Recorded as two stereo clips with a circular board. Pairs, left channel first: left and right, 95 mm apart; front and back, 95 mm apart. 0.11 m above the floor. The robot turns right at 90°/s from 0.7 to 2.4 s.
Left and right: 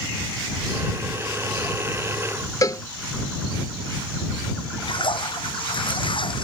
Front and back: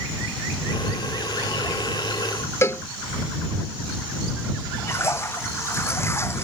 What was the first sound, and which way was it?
A cowbell, 50° left.